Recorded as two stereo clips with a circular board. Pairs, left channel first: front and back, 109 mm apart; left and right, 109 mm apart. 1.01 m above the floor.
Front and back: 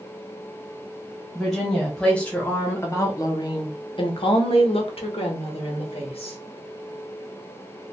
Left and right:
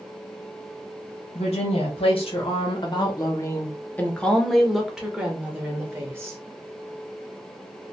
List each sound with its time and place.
1.4 s a woman speaking: 90° left, 1.5 m; by 6.4 s 25° right, 1.9 m